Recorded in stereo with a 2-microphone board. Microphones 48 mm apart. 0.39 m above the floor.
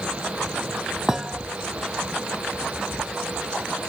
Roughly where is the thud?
Centre.